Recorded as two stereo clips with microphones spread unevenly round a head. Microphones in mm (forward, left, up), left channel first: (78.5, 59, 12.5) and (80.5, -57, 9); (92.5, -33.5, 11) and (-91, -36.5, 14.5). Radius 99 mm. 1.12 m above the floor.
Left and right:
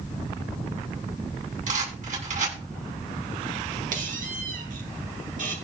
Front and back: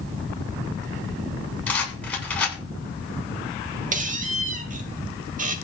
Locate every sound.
1.7 s a rattle: 80° right, 10 m
3.9 s a squeak: 130° right, 1.9 m